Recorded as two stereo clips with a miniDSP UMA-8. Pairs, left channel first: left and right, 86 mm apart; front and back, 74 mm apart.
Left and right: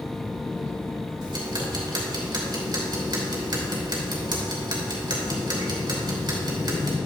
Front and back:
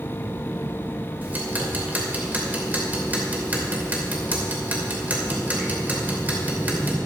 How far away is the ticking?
About 2.5 m.